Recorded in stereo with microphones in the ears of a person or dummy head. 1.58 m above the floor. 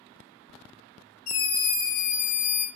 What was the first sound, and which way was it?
A scream, 85° left.